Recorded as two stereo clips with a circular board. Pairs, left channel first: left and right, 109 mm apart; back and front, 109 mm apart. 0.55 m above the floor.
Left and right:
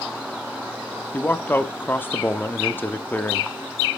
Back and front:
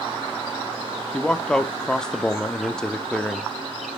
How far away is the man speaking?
About 0.6 m.